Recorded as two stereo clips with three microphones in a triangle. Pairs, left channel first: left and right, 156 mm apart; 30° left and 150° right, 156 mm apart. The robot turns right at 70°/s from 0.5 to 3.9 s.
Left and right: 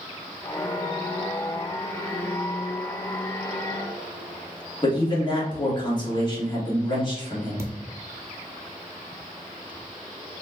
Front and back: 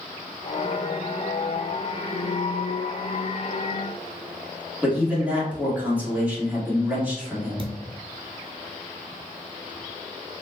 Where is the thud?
155° right, 0.8 m.